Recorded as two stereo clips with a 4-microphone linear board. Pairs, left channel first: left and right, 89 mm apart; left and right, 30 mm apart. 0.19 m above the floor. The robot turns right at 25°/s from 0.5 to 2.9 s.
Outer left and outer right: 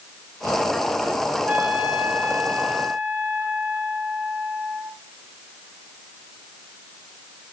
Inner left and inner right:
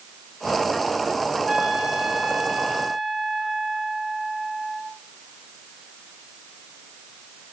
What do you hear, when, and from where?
1.5 s a trumpet: 25° right (ahead or behind), 1.7 m; by 4.9 s 20° right (ahead or behind), 1.7 m